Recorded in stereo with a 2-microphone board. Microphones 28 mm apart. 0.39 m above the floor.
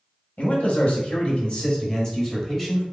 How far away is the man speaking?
About 1.7 m.